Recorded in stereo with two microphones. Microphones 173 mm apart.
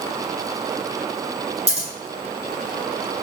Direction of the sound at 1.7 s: 40° right (ahead or behind).